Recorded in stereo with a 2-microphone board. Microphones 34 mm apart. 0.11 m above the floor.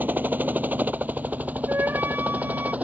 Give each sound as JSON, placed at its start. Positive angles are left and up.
{"t": 0.0, "sound": "a helicopter", "side_deg": -55}
{"t": 1.7, "sound": "a flute", "side_deg": -75}